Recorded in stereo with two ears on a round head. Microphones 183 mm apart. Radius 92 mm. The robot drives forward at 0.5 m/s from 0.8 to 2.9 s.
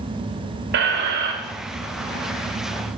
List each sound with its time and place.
0.7 s a squeak: 55° right (ahead or behind), 0.9 m